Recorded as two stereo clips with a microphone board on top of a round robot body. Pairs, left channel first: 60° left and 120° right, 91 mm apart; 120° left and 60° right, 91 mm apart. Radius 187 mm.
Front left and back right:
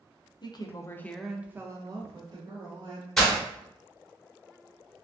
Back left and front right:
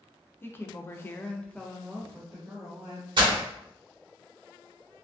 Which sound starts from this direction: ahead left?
A woman speaking, at 0.4 s.